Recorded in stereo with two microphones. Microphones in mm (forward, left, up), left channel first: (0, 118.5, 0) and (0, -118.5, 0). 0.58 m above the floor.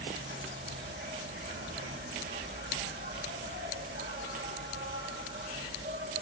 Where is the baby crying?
I don't hear a baby crying.